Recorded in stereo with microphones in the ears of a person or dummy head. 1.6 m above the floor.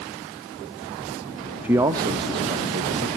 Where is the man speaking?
10° right (ahead or behind), 0.7 m; by 3.1 s 35° right (ahead or behind), 1.8 m.